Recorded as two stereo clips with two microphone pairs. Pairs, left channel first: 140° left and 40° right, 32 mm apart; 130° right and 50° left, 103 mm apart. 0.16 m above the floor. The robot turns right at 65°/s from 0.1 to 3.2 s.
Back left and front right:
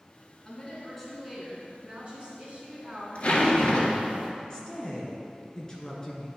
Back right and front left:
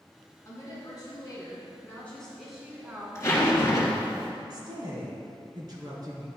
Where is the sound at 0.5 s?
170° right, 2.0 m; by 4.2 s 10° left, 2.0 m.